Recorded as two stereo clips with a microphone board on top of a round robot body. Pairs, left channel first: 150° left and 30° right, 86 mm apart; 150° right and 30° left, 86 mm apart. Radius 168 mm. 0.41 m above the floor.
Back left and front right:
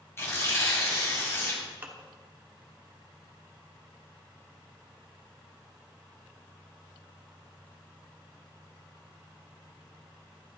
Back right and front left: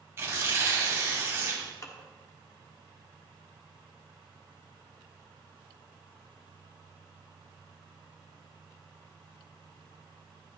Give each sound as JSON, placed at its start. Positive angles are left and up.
{"t": 0.2, "sound": "tearing paper", "azimuth_deg": 90, "distance_m": 2.5}
{"t": 1.8, "sound": "dishes clattering", "azimuth_deg": -95, "distance_m": 1.2}